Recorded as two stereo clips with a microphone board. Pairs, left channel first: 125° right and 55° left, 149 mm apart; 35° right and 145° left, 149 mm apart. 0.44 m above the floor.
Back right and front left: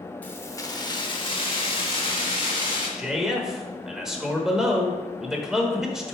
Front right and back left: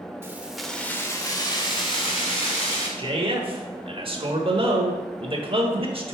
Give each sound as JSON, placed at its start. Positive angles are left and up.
{"t": 0.2, "sound": "keys jangling", "azimuth_deg": 180, "distance_m": 0.7}
{"t": 3.0, "sound": "a man speaking", "azimuth_deg": 140, "distance_m": 1.0}